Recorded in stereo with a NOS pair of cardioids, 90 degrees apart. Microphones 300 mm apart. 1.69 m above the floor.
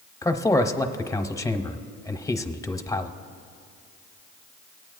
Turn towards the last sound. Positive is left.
turn(degrees=10)